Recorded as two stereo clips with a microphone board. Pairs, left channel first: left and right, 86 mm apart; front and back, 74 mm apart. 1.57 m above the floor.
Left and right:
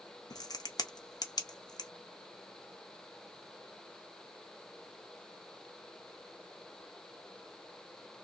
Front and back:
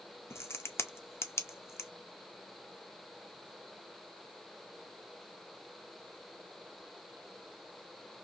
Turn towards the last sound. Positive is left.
turn(degrees=50)